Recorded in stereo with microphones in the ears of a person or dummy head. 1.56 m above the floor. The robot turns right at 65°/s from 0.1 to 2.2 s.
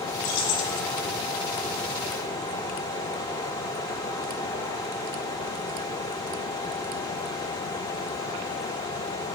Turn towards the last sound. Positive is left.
turn(degrees=175)